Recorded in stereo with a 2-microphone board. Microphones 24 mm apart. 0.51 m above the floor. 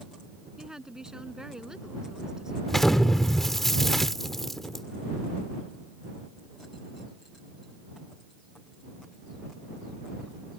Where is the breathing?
I don't hear breathing.